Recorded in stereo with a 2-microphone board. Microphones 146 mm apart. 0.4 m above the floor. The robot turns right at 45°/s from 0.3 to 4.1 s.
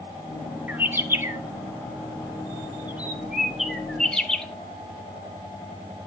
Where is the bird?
10° right (ahead or behind), 0.5 m; by 4.5 s 5° left (ahead or behind), 0.5 m.